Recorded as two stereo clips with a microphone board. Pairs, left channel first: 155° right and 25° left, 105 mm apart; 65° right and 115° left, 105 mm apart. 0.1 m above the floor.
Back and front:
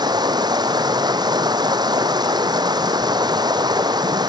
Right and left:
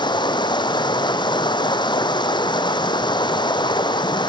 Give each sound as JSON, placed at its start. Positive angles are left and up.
{"t": 0.0, "sound": "running water", "azimuth_deg": -25, "distance_m": 1.3}